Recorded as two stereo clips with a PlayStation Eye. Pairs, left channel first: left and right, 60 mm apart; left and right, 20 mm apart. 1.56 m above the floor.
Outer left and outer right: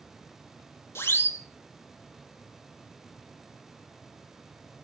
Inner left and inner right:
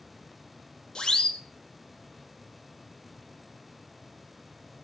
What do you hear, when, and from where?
0.9 s a siren: 45° left (ahead or behind), 2.5 m